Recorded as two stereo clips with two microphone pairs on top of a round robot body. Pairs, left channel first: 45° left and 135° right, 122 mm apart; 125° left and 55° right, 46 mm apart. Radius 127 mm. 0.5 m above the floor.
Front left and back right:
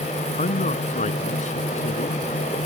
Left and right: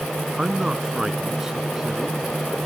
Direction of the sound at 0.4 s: 25° left.